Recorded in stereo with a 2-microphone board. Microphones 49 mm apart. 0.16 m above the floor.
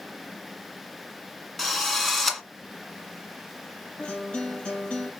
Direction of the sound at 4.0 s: 20° left (ahead or behind).